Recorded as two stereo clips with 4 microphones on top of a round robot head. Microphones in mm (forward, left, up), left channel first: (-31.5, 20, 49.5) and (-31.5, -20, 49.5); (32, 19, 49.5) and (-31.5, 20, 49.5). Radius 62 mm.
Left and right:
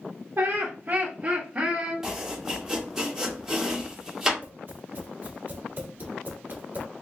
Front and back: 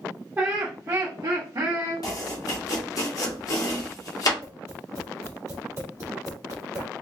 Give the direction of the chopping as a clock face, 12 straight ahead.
12 o'clock.